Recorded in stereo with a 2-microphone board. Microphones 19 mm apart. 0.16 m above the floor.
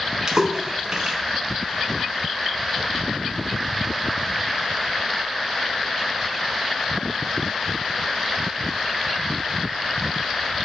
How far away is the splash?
About 1.0 m.